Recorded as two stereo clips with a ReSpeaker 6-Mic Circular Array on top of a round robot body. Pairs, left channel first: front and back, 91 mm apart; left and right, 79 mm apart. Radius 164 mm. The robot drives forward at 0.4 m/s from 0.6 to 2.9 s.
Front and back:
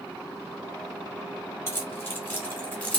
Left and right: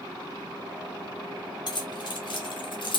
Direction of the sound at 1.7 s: 60° left.